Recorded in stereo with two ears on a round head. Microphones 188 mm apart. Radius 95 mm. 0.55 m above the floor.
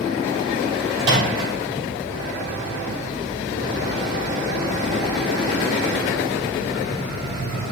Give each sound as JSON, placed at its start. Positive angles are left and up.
{"t": 1.0, "sound": "a microwave", "side_deg": -55, "distance_m": 3.0}